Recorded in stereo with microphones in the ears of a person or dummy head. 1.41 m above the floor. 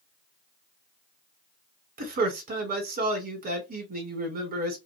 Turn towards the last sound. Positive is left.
turn(degrees=-40)  # may be behind; listen again after turning